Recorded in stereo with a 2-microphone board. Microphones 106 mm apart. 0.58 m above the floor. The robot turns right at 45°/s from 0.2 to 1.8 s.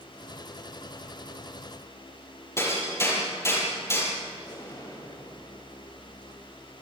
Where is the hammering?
25° left (ahead or behind), 7 m.